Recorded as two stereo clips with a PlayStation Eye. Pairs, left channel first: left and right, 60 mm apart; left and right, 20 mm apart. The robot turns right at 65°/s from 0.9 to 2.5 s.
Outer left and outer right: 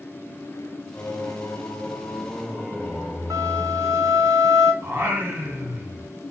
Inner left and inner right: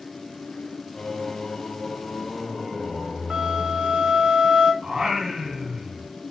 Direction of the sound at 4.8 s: 40° right (ahead or behind).